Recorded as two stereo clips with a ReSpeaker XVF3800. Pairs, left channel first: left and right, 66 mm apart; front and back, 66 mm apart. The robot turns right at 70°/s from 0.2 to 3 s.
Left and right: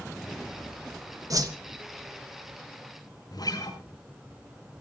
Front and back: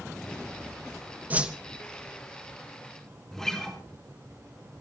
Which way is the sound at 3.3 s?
85° left.